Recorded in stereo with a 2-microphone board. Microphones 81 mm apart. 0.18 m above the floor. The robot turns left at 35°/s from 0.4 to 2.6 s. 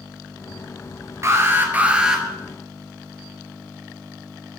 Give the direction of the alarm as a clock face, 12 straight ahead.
5 o'clock.